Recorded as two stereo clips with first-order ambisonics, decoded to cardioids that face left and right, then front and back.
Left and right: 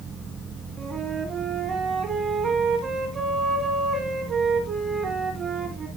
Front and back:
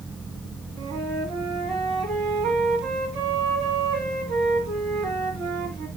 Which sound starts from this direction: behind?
A flute, at 0.8 s.